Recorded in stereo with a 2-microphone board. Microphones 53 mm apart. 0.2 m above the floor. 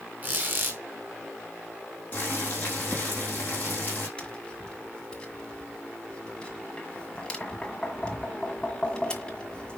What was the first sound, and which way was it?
A squeak, 35° right (ahead or behind).